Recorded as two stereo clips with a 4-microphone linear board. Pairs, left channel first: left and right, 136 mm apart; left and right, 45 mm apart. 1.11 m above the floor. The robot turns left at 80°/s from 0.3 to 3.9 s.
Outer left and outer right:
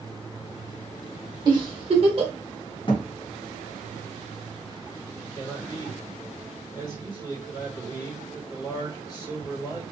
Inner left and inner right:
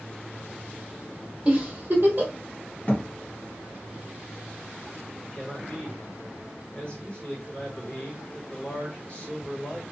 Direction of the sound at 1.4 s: 35° right (ahead or behind).